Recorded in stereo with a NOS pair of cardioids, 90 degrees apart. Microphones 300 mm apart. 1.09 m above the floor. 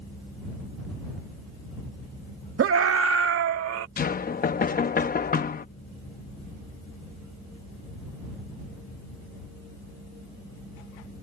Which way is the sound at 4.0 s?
30° left.